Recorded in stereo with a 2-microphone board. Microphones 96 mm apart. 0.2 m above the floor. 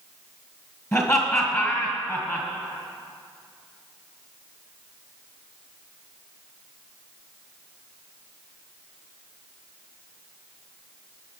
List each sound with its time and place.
0.9 s laughter: 30° left (ahead or behind), 1.9 m